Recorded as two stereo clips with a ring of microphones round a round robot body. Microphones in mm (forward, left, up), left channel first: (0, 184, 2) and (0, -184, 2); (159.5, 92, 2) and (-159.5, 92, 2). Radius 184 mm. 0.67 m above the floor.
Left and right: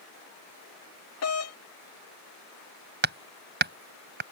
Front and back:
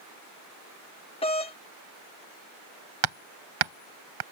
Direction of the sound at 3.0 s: 155° right.